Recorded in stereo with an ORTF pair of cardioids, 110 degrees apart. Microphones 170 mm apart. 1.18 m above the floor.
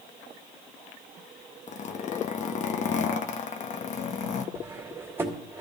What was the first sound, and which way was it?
A zipper, 45° left.